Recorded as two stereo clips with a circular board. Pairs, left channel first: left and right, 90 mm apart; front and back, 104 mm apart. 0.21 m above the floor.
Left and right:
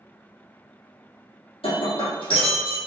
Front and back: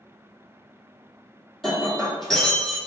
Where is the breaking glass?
90° left, 2.0 m.